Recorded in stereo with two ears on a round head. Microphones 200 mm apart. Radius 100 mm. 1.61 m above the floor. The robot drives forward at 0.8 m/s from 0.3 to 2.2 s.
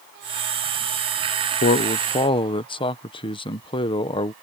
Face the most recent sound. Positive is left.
turn(degrees=25)  # may be behind; listen again after turning